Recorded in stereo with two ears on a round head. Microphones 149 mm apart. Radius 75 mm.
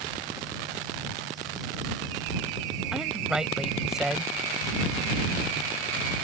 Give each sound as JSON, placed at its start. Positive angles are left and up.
{"t": 2.9, "sound": "a woman speaking", "side_deg": -5}